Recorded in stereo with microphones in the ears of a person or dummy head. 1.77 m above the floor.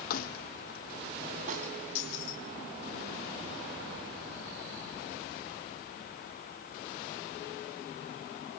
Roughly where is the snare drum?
Right.